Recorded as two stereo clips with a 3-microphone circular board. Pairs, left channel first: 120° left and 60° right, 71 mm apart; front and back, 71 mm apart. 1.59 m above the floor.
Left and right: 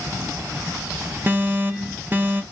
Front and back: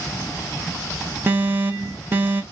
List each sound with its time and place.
1.3 s an alarm: 120° right, 0.8 m